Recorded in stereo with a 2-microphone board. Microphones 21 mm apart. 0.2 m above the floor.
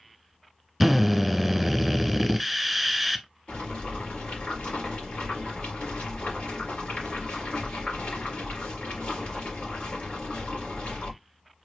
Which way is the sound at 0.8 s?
Centre (ahead or behind).